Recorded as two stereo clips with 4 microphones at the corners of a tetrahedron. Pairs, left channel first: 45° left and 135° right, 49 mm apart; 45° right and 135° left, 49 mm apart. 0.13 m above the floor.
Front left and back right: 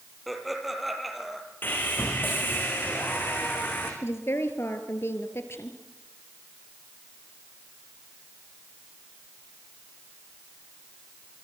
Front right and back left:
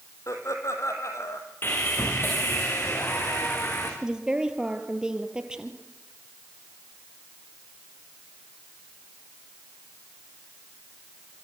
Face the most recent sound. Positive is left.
turn(degrees=60)